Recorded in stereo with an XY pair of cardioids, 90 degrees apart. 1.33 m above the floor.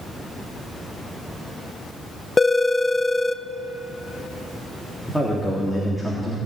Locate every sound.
2.4 s a phone ringing: 25° left, 0.7 m
5.1 s a man speaking: 10° left, 3.5 m